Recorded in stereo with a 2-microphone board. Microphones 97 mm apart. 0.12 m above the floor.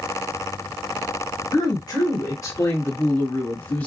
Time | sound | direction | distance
1.5 | a woman speaking | 40° left (ahead or behind) | 1.7 m